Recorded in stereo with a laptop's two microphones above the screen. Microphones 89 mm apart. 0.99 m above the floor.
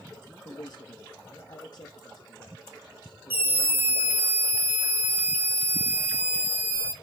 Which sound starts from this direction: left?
A man speaking, at 0.5 s.